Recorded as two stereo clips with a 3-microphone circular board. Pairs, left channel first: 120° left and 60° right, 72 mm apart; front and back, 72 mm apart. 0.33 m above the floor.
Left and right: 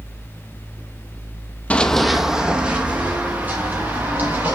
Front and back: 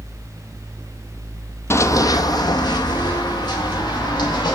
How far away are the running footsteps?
About 0.6 m.